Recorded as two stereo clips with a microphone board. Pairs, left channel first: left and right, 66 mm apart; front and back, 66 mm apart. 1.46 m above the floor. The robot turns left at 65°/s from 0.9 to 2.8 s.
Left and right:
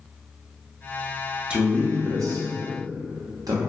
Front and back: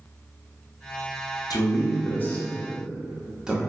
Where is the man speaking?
15° right, 0.6 m; by 3.6 s 100° right, 0.6 m.